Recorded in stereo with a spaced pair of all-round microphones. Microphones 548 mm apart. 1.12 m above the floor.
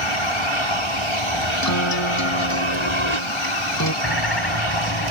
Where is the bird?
45° left (ahead or behind).